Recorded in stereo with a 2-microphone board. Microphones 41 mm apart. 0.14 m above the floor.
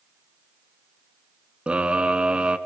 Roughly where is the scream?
Right.